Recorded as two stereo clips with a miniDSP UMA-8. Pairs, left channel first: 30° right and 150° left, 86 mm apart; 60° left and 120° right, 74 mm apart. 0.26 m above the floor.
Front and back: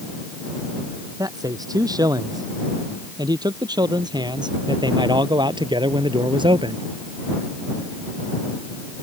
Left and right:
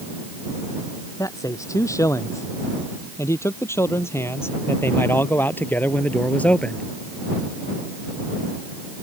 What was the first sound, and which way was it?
A man speaking, 105° left.